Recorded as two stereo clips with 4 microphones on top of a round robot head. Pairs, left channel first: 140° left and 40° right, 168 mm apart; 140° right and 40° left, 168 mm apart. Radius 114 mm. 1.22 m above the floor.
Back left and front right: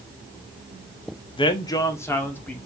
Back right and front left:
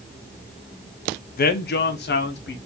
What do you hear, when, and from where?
1.4 s a man speaking: 165° right, 0.7 m; by 2.6 s 140° right, 1.2 m